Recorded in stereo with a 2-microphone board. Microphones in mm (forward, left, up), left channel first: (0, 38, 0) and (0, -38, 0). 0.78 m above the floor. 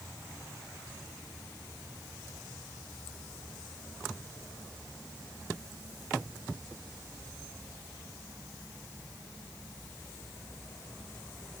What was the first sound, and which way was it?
Only background noise.